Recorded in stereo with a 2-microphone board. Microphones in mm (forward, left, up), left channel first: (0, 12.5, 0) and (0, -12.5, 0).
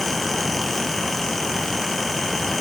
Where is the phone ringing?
I don't hear a phone ringing.